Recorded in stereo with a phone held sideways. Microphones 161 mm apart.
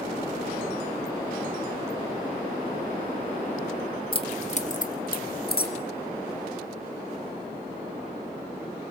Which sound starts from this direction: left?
Keys jangling, at 4.1 s.